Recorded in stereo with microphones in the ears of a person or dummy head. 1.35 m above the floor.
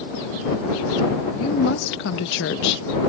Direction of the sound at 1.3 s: 75° left (ahead or behind).